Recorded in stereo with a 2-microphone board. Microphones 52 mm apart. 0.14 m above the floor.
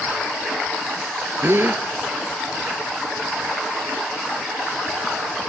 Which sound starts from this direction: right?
A gasp, at 1.4 s.